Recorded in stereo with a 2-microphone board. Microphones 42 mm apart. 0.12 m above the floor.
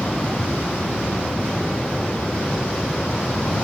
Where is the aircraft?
25° left (ahead or behind).